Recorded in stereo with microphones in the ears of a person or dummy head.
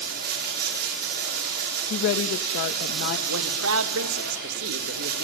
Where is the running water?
50° right (ahead or behind), 6 m.